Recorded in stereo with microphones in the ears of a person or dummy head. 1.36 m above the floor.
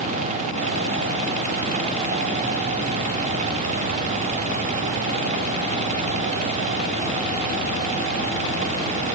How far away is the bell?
No bell in this recording.